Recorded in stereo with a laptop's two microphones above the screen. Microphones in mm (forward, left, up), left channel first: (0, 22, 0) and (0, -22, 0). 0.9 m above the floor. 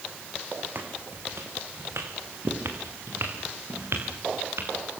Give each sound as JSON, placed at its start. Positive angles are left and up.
{"t": 0.8, "sound": "footsteps", "side_deg": -55, "distance_m": 3.0}